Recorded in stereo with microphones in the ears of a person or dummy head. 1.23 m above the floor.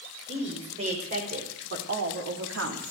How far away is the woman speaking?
About 5.5 m.